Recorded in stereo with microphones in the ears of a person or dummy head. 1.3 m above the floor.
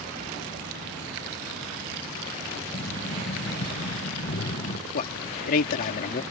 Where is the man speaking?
55° left (ahead or behind).